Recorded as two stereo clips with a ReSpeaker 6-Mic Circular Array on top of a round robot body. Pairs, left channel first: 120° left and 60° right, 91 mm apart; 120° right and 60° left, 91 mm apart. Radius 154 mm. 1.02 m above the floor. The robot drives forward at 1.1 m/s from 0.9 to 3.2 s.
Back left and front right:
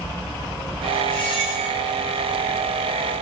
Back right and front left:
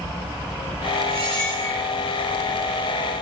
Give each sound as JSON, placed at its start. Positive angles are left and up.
{"t": 1.1, "sound": "a squeak", "azimuth_deg": 85, "distance_m": 3.5}